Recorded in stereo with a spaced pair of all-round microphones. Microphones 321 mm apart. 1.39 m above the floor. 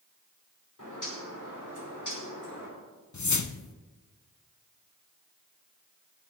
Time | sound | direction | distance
0.8 | a bird | 65° left (ahead or behind) | 5 m
3.1 | a whoosh | 60° left (ahead or behind) | 0.6 m